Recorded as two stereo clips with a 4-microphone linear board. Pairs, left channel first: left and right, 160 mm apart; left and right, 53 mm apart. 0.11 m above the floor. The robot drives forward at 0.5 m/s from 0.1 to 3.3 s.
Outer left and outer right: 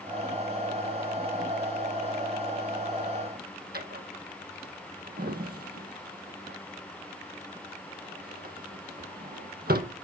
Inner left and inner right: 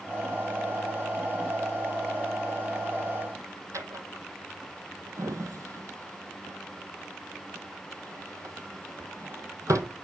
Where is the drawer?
70° right (ahead or behind), 0.8 m.